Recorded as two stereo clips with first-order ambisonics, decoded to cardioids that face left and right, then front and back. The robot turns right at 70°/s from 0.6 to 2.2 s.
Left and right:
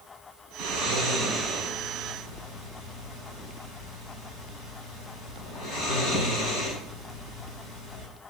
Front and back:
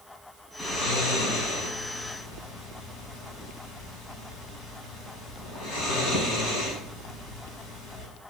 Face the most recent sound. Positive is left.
turn(degrees=50)